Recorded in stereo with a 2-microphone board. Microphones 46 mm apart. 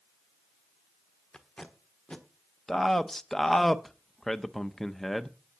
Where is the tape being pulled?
20° left (ahead or behind), 1.4 m.